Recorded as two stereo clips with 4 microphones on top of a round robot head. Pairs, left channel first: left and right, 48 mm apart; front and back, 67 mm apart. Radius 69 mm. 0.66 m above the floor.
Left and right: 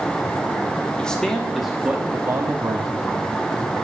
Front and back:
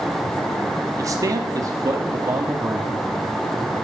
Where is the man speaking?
160° left, 2.0 m; by 3.1 s 110° right, 2 m.